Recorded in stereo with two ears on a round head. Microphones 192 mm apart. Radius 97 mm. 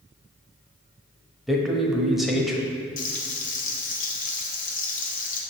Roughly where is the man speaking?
Centre.